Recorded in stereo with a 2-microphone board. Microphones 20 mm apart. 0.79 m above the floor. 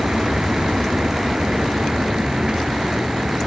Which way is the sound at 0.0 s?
50° right (ahead or behind).